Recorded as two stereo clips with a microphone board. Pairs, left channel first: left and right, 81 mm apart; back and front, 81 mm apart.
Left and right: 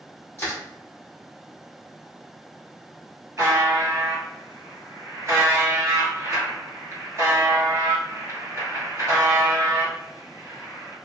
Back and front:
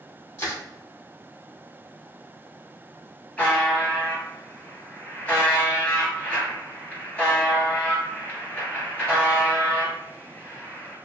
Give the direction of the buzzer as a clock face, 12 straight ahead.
4 o'clock.